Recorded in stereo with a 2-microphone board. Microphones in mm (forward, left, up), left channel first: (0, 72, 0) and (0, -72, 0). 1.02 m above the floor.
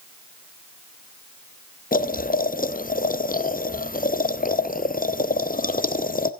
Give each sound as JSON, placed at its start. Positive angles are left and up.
{"t": 1.9, "sound": "boiling", "side_deg": 75, "distance_m": 0.6}